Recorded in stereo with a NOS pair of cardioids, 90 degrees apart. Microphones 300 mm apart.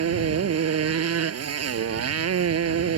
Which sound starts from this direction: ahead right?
A motorcycle, at 0.0 s.